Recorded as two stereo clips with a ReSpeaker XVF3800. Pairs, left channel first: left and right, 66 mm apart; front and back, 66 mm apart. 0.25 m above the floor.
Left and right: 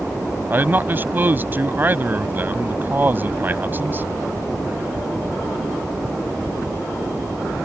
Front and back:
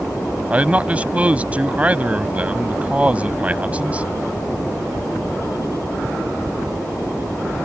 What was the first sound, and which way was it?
A man speaking, 125° right.